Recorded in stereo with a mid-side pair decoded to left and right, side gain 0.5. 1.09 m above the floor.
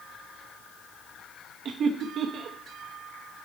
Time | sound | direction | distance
1.6 | laughter | 55° right | 0.9 m